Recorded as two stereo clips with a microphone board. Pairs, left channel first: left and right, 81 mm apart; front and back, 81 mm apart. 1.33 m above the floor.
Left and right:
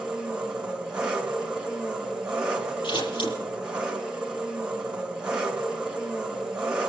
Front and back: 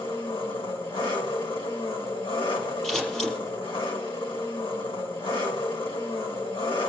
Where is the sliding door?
No sliding door in this recording.